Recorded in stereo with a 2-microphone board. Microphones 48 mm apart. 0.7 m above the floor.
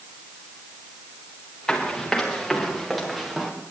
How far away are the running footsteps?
About 5 m.